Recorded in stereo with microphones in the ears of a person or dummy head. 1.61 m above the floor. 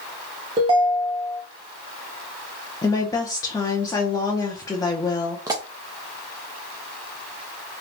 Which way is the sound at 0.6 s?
30° right (ahead or behind).